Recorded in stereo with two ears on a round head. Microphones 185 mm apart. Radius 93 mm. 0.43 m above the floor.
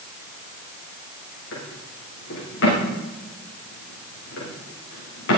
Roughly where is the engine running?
No engine running in this recording.